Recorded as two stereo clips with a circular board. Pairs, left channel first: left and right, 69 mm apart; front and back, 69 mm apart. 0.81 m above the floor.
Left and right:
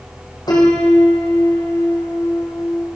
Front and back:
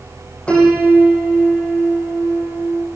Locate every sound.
0.5 s a piano: 75° left, 8 m